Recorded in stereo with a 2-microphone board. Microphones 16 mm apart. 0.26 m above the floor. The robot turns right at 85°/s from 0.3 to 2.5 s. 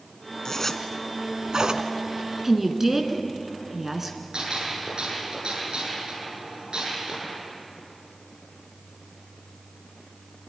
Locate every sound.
0.5 s a zipper: 35° left (ahead or behind), 1.3 m; by 1.9 s 70° right (ahead or behind), 1.3 m
2.4 s a woman speaking: 20° right (ahead or behind), 2.5 m; by 4.2 s 15° right (ahead or behind), 2.5 m
4.3 s a gunshot: 75° right (ahead or behind), 8.5 m